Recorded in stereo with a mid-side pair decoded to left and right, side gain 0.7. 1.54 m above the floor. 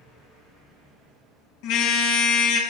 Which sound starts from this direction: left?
A car horn, at 1.6 s.